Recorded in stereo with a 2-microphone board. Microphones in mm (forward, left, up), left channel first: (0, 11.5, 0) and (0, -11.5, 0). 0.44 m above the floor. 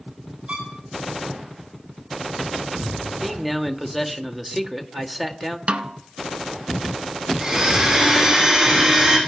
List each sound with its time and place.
0.5 s a violin: 70° right (ahead or behind), 6 m
3.2 s a man speaking: 5° right (ahead or behind), 1.5 m
5.7 s a snare drum: 65° right (ahead or behind), 0.8 m
7.4 s a blender: 35° right (ahead or behind), 7 m